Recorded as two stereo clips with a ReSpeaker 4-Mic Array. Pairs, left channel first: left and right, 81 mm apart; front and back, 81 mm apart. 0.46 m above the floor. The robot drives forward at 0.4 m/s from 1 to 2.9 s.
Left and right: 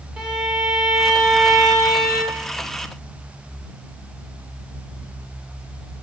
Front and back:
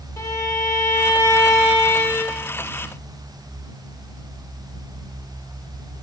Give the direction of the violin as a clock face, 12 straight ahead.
12 o'clock.